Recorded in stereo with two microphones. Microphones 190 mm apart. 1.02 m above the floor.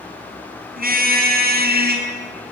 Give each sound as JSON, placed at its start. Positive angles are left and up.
{"t": 0.8, "sound": "a car horn", "side_deg": -50, "distance_m": 4.5}